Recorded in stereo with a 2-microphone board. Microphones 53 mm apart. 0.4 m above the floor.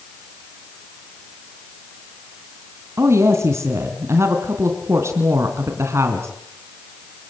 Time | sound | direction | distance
3.0 | a woman speaking | 60° right (ahead or behind) | 3 m